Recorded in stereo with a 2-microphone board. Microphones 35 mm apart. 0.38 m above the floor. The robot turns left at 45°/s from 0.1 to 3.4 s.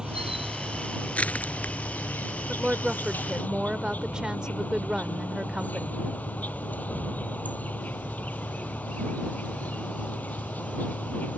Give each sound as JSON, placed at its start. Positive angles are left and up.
{"t": 0.0, "sound": "an insect", "azimuth_deg": -160}
{"t": 1.1, "sound": "crushing", "side_deg": 45}
{"t": 2.5, "sound": "a woman speaking", "side_deg": -20}